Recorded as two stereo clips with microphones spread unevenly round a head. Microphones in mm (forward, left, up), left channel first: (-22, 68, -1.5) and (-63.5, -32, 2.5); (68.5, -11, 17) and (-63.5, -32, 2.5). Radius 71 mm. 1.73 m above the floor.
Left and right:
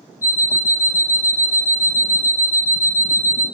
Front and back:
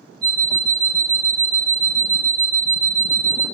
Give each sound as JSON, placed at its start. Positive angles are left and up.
{"t": 0.2, "sound": "an alarm clock", "azimuth_deg": 80, "distance_m": 1.3}